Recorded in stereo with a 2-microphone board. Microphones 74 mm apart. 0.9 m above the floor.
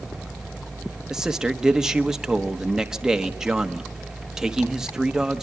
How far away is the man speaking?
About 1.2 m.